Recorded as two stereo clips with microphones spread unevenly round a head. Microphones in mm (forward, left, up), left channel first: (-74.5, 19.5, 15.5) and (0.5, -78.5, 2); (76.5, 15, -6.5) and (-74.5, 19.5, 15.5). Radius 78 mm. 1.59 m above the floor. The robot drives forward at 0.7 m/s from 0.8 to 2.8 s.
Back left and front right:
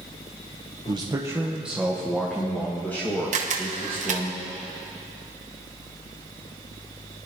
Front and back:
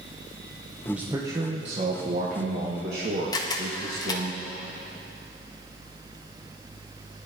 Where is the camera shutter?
70° right, 1.1 m.